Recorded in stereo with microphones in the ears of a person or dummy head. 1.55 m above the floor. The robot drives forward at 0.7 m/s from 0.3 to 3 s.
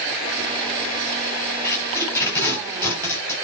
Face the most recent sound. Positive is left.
turn(degrees=10)  # may be behind; listen again after turning